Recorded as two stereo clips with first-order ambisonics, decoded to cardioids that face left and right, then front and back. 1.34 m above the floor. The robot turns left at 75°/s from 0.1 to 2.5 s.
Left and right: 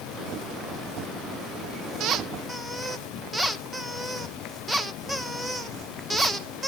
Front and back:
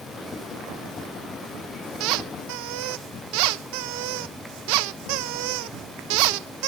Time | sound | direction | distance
2.0 | a squeak | 140° right | 0.9 m